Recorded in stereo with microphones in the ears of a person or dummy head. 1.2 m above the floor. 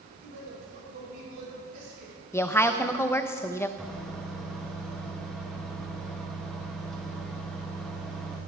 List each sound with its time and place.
0.1 s a man speaking: 60° right (ahead or behind), 5.5 m; by 2.1 s 50° right (ahead or behind), 4 m
2.3 s a woman speaking: 10° left (ahead or behind), 0.7 m
3.8 s a microwave: centre (ahead or behind), 1.2 m